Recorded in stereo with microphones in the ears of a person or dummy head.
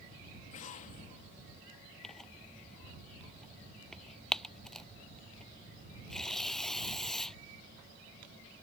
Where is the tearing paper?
5° left (ahead or behind).